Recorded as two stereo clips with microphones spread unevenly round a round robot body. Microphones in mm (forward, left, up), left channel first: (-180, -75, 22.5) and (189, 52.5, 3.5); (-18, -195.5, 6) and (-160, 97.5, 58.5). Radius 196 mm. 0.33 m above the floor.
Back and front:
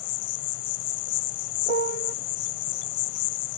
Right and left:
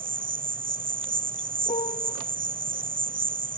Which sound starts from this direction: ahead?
A piano, at 1.7 s.